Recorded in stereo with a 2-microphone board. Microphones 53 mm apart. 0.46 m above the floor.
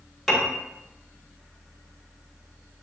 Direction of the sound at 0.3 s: 10° left (ahead or behind).